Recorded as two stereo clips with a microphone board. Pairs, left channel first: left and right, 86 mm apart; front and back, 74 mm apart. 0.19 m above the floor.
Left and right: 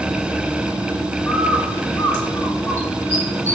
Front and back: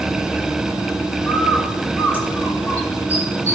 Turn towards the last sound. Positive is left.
turn(degrees=45)